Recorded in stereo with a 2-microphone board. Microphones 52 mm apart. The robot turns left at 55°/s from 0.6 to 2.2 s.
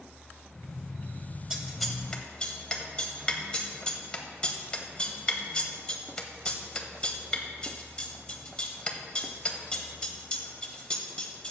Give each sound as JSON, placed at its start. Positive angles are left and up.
{"t": 1.5, "sound": "scissors", "side_deg": -15, "distance_m": 0.9}